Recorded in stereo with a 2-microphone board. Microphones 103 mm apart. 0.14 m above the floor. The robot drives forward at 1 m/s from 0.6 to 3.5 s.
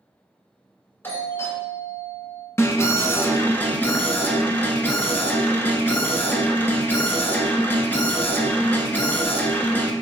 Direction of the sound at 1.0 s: 20° left (ahead or behind).